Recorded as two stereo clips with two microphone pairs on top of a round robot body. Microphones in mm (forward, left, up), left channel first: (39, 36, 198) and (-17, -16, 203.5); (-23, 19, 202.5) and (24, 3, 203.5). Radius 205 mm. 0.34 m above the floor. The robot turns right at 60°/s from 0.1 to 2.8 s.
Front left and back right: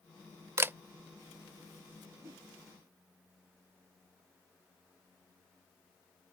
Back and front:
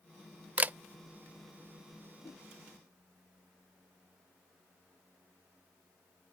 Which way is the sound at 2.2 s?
170° left.